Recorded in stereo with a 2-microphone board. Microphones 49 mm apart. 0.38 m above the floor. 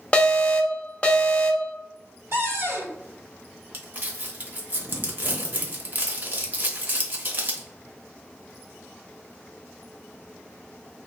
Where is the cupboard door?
60° right (ahead or behind), 1.9 m.